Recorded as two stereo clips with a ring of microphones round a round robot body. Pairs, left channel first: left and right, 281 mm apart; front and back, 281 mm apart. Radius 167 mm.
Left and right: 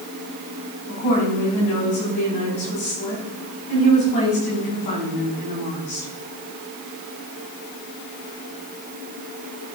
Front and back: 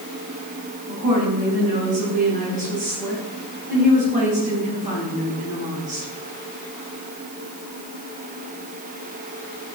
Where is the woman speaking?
115° left, 4.5 m.